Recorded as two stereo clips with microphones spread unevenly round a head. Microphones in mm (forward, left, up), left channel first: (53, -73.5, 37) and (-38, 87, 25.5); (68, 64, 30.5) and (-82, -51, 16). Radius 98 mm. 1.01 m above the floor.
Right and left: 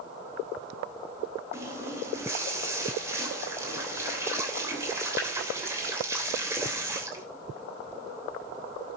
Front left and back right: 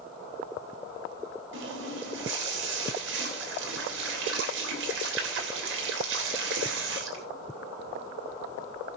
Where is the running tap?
165° right, 3 m.